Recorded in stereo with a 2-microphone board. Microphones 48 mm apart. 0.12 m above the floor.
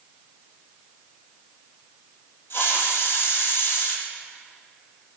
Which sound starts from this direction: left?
A hiss, at 2.5 s.